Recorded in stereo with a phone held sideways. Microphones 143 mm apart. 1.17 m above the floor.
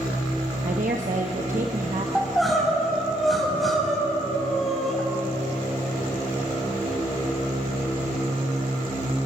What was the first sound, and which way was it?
A woman speaking, 60° right (ahead or behind).